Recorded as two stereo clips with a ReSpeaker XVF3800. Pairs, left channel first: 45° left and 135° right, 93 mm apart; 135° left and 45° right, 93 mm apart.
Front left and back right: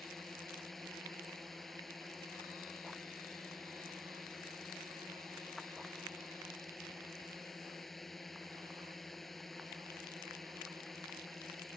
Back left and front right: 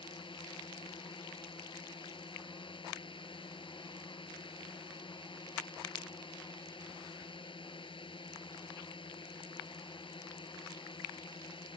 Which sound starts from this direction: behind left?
A drone, at 0.0 s.